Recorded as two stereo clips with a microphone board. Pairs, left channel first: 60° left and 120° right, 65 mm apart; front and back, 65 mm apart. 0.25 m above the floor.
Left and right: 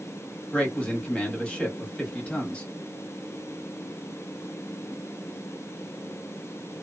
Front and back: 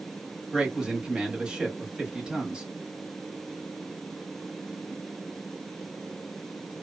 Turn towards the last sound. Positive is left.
turn(degrees=115)